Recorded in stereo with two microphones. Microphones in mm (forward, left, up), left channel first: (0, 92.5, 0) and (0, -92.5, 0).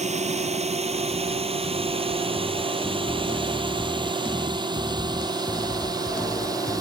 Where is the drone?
35° right (ahead or behind); by 6.8 s 20° right (ahead or behind).